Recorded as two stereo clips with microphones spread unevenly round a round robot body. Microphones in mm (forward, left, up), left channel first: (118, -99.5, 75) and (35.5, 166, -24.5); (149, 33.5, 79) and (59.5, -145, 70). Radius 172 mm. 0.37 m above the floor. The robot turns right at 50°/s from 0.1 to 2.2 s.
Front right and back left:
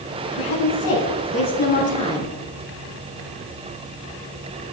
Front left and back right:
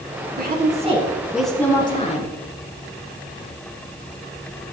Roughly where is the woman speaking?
Right.